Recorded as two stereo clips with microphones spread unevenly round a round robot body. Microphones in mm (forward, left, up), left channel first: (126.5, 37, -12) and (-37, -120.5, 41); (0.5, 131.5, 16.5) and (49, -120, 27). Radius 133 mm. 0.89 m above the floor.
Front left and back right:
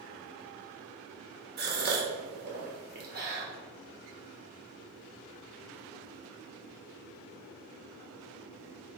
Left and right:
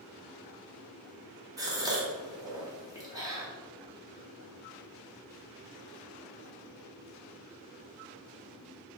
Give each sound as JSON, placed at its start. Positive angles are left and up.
{"t": 1.6, "sound": "a gasp", "azimuth_deg": -140, "distance_m": 0.9}